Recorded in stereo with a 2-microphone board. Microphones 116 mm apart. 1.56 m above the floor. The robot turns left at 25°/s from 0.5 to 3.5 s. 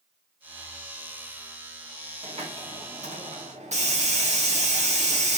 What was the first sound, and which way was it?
A hiss, 55° right.